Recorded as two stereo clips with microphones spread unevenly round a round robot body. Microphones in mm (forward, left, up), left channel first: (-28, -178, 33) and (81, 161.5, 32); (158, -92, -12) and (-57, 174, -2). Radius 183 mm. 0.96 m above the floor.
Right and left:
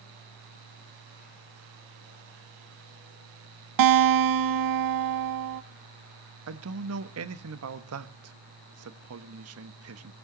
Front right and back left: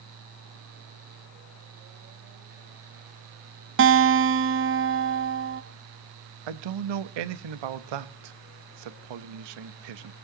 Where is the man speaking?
125° left, 1.0 m.